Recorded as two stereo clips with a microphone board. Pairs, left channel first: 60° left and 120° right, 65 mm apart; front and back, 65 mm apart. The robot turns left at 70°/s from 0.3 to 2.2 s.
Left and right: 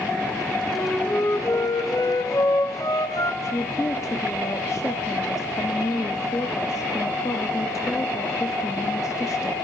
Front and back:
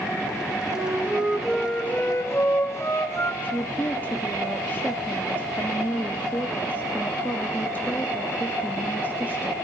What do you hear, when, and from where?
0.7 s a flute: 150° left, 2.5 m; by 3.3 s 45° left, 2.5 m
3.4 s a woman speaking: 55° left, 1.1 m